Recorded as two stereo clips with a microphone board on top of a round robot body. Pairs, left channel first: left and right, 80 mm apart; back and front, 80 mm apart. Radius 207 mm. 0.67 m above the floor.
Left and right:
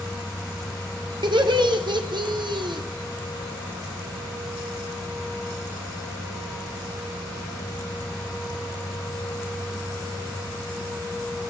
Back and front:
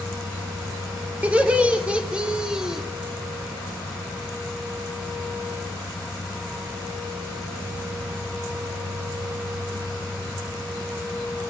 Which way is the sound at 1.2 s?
75° right.